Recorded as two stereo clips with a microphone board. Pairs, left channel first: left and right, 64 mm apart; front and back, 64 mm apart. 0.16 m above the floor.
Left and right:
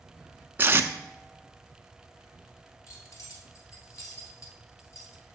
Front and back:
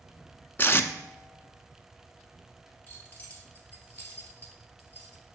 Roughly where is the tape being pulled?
Ahead right.